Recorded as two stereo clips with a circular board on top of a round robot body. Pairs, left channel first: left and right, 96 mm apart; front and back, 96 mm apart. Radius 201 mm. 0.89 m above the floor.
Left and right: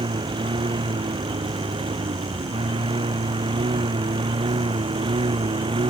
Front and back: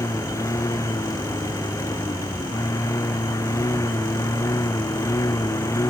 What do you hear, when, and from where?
0.0 s a lawn mower: 60° right